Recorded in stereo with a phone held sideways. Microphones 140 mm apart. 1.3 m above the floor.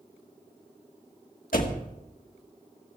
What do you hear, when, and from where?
1.5 s a door slam: 75° left (ahead or behind), 1.6 m